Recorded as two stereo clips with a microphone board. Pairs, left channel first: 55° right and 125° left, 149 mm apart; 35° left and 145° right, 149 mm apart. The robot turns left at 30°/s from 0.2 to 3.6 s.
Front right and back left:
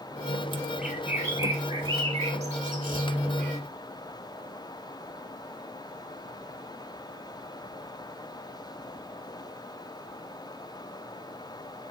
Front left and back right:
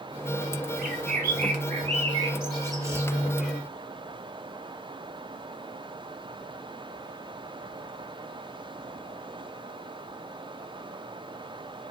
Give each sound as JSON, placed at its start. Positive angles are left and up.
{"t": 0.8, "sound": "a bird", "azimuth_deg": -150, "distance_m": 0.7}